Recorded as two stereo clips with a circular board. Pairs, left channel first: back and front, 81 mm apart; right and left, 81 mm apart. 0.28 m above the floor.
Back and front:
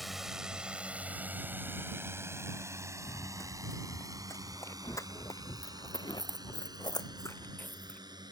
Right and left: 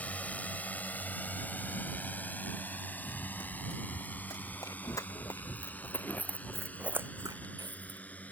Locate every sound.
0.0 s a drone: 85° right; by 8.3 s 20° right
3.0 s running footsteps: 125° right; by 8.0 s 100° left